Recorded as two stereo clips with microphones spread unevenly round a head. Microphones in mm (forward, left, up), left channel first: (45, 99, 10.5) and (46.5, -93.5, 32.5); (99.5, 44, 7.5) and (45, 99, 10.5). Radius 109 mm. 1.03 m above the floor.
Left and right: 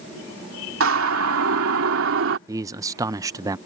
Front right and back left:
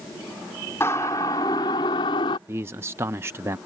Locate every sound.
0.8 s a siren: 120° right; by 2.4 s 75° right
2.5 s a man speaking: 165° right